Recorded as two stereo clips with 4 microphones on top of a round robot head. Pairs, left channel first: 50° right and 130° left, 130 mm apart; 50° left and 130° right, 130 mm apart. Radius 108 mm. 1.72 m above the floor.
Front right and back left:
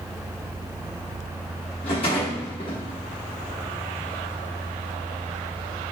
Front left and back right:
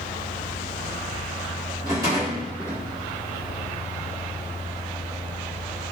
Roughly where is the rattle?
Right.